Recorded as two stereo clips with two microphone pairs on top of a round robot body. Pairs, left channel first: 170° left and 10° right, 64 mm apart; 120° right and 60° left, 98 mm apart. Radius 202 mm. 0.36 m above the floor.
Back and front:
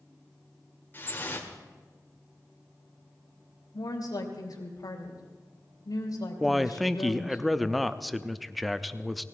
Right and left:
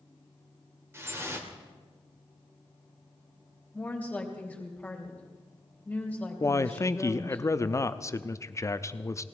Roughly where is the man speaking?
Right.